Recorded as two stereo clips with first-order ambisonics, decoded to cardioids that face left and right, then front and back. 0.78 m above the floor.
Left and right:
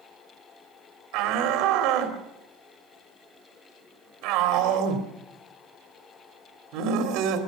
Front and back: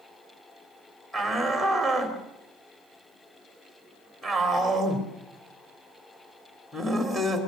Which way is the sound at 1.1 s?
80° right.